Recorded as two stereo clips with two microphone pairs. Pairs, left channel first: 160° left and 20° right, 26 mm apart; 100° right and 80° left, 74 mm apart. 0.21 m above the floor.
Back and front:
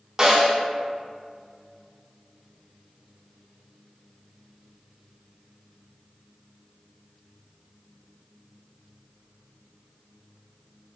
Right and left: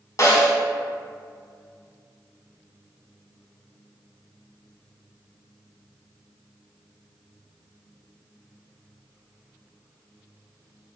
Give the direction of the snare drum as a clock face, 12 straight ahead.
3 o'clock.